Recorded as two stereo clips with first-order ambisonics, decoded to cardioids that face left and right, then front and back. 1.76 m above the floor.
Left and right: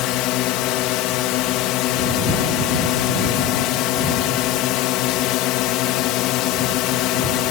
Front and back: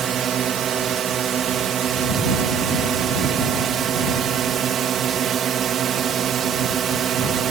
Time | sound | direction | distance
0.0 | a drone | 120° left | ?